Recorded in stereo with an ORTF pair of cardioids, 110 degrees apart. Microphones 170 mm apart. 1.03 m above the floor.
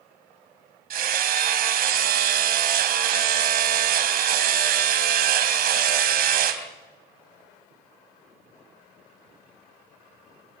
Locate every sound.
0.9 s hammering: 65° right, 3 m